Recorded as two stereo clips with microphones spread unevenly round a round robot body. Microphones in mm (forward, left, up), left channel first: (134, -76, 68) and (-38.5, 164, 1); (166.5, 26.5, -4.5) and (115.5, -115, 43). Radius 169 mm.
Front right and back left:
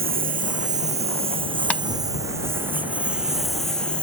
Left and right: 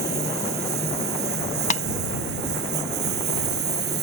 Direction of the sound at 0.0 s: 170° right.